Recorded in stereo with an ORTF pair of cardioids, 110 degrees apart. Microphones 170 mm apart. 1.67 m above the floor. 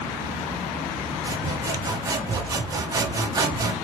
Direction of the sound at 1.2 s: 25° right.